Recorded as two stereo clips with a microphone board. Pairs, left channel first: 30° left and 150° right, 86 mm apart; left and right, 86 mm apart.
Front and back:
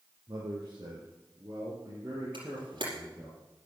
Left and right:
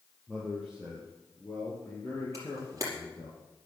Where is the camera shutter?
140° right, 5 m.